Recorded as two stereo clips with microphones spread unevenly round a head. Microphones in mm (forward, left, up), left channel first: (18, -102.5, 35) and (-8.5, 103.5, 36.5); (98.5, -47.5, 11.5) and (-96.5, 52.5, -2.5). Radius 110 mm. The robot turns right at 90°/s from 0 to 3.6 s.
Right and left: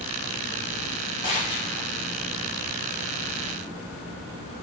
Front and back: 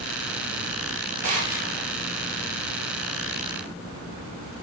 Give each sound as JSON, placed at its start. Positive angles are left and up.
{"t": 1.2, "sound": "a gunshot", "azimuth_deg": -150, "distance_m": 2.5}